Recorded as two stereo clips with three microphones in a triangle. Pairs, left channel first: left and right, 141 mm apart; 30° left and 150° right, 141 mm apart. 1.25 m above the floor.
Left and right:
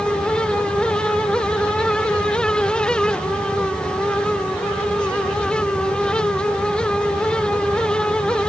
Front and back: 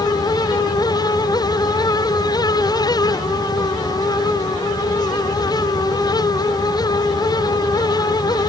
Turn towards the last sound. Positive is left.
No sound to turn to.